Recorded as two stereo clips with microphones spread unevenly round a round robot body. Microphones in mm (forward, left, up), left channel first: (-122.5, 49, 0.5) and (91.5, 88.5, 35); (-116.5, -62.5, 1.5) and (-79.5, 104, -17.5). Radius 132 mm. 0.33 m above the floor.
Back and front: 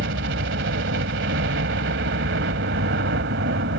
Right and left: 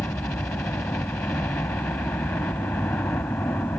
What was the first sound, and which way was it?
A helicopter, 20° right.